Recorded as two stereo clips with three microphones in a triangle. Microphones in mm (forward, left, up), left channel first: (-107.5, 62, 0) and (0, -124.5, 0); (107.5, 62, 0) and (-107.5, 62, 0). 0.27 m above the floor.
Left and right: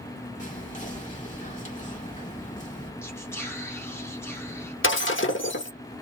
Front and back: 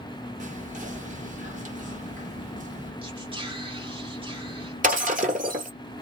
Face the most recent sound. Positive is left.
turn(degrees=130)